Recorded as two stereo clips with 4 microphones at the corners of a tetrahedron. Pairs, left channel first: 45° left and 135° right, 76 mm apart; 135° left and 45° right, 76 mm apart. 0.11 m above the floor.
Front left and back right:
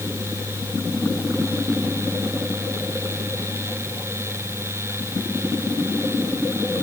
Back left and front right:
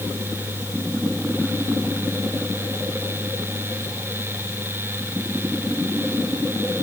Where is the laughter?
I don't hear laughter.